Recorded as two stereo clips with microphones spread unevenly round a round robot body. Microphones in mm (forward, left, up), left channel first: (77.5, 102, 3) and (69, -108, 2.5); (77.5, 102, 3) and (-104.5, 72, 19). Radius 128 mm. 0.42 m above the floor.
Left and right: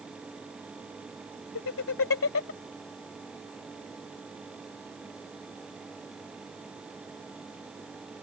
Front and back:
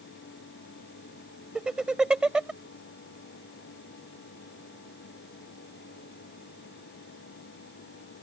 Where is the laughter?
105° left.